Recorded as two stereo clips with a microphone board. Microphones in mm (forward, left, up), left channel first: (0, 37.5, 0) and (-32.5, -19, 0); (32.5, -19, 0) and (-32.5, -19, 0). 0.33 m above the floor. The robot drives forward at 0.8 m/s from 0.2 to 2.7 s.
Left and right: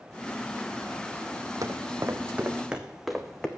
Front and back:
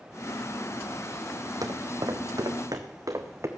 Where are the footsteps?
155° right, 1.1 m; by 3.5 s 140° left, 1.5 m.